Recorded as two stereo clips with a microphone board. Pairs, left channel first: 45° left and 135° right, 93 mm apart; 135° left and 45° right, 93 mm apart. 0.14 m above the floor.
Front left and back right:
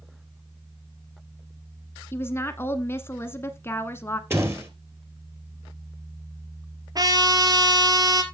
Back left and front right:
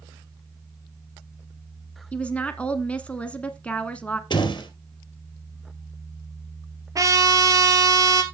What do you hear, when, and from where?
2.1 s a woman speaking: 75° left, 1.1 m
4.3 s a door slam: 165° left, 2.5 m
7.0 s a trumpet: 95° right, 1.7 m